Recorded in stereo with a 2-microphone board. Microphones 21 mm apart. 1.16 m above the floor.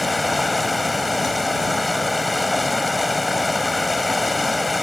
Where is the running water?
Centre (ahead or behind).